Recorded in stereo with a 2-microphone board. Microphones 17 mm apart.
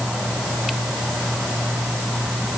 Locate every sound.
Only background noise.